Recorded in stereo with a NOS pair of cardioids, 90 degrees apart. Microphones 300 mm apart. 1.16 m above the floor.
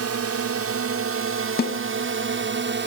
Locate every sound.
0.0 s a drone: 55° right; by 2.9 s 40° right
1.6 s a snare drum: 35° left